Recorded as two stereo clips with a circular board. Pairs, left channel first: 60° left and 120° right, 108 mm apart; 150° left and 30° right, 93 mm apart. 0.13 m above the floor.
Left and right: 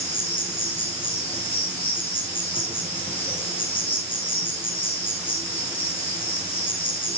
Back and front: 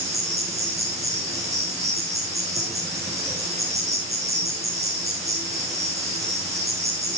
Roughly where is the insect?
Ahead left.